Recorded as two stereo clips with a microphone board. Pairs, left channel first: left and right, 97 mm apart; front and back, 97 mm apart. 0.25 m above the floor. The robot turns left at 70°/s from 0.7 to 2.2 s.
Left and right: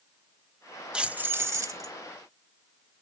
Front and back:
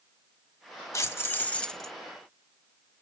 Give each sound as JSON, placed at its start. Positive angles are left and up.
{"t": 0.9, "sound": "keys jangling", "azimuth_deg": -20, "distance_m": 0.8}